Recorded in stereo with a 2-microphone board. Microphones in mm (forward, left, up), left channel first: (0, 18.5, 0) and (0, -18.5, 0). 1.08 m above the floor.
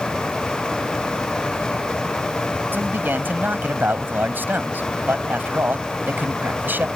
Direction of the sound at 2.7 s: 65° right (ahead or behind).